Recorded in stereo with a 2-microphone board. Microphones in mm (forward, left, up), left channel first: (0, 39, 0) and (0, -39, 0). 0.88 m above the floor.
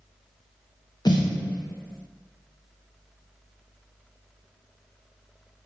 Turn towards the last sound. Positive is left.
turn(degrees=65)  # may be behind; listen again after turning